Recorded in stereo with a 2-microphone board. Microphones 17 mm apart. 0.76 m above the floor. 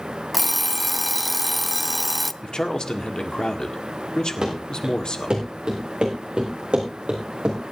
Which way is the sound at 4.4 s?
45° right (ahead or behind).